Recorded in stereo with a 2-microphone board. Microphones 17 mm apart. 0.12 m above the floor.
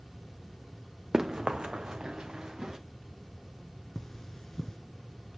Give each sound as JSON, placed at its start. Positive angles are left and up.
{"t": 1.1, "sound": "running footsteps", "side_deg": -35, "distance_m": 0.7}
{"t": 4.0, "sound": "cutlery clinking", "side_deg": 30, "distance_m": 0.8}